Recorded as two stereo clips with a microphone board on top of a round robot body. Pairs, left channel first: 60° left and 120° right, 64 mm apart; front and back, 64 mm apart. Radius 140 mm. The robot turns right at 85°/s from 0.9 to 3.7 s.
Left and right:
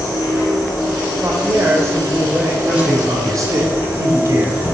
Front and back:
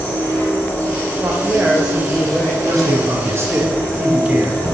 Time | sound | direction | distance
0.0 | an insect | 60° left | 2.5 m
1.2 | a woman speaking | 170° right | 1.0 m
2.6 | a man speaking | 165° left | 1.4 m